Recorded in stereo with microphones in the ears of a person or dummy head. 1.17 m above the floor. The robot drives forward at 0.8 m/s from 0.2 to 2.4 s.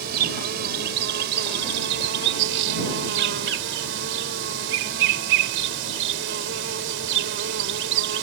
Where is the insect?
55° right (ahead or behind); by 8.2 s 70° right (ahead or behind).